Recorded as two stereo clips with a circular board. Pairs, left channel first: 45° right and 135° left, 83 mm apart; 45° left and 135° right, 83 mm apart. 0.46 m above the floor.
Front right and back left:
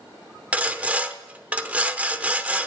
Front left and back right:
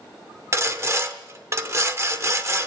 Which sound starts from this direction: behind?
Sawing, at 0.5 s.